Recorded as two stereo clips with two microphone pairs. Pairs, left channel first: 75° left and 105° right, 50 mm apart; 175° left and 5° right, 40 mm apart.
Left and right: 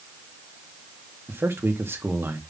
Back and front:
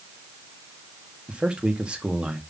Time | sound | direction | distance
1.3 | a man speaking | 65° right | 2.0 m